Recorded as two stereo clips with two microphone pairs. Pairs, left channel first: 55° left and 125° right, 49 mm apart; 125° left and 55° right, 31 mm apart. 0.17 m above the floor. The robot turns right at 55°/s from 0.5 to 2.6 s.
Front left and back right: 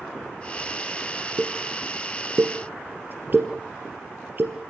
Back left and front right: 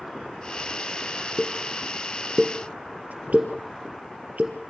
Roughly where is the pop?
Behind right.